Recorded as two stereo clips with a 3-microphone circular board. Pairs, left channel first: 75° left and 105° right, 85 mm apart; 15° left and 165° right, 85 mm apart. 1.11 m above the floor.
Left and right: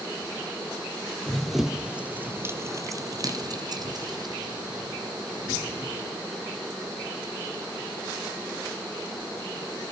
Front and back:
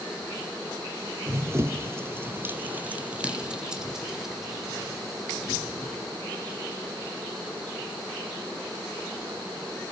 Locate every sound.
1.3 s running footsteps: 160° left, 1.4 m; by 6.2 s 70° right, 3.5 m